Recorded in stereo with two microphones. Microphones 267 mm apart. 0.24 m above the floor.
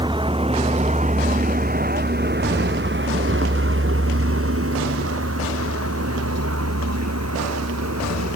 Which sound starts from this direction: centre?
A vehicle, at 0.0 s.